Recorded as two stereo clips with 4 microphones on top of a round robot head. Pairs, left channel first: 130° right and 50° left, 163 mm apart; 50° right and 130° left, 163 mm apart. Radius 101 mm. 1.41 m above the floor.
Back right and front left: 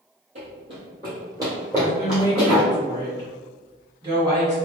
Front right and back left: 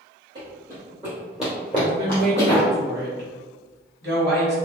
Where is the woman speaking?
115° left, 1.3 m.